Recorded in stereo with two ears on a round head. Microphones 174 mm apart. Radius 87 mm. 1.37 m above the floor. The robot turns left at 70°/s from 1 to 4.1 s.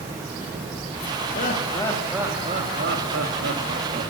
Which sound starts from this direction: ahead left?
Laughter, at 1.4 s.